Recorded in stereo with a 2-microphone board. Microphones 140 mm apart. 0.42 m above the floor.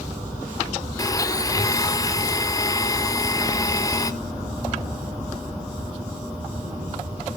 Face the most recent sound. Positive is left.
turn(degrees=25)  # may be behind; listen again after turning